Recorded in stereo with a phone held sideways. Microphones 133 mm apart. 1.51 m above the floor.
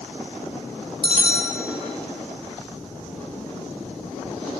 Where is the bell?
40° right (ahead or behind), 1.4 m.